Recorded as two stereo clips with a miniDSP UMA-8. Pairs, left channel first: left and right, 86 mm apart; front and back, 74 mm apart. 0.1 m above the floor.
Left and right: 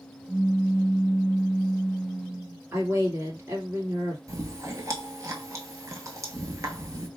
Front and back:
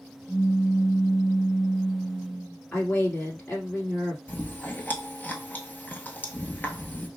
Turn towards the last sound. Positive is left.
turn(degrees=-55)